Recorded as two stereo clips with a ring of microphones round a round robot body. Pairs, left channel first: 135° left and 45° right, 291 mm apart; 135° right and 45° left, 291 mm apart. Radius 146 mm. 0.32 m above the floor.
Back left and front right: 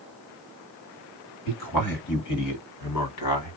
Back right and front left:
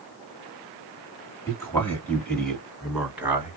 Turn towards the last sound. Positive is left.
turn(degrees=125)